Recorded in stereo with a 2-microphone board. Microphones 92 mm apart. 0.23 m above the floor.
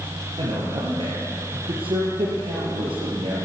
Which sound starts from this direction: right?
A man speaking, at 0.4 s.